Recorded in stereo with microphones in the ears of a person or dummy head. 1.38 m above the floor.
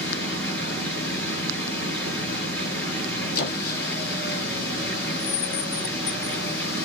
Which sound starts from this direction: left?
A squeak, at 3.4 s.